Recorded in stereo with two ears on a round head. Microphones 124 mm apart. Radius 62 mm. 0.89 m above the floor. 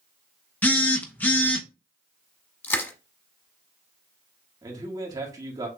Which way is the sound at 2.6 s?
15° left (ahead or behind).